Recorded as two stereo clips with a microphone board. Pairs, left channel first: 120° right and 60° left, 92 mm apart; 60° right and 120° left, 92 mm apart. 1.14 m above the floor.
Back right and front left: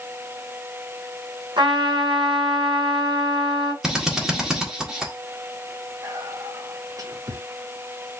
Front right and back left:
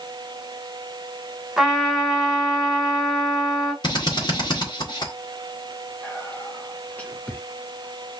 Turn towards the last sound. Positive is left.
turn(degrees=15)